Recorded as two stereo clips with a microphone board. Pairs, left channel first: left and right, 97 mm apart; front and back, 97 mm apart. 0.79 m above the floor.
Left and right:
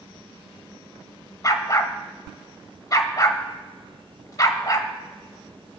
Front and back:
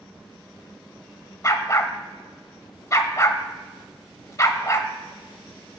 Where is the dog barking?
45° left, 0.8 m.